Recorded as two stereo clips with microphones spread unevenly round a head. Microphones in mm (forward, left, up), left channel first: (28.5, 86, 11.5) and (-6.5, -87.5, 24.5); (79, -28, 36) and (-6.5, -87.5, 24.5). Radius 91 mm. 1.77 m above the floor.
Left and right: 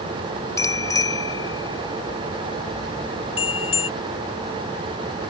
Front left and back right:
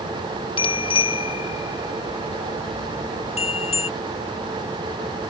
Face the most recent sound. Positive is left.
turn(degrees=20)